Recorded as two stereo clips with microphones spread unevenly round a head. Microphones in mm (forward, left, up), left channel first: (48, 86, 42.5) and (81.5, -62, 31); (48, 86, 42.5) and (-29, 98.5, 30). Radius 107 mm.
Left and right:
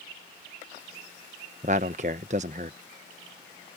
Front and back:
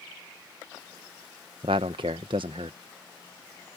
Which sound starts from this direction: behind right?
A man speaking, at 1.6 s.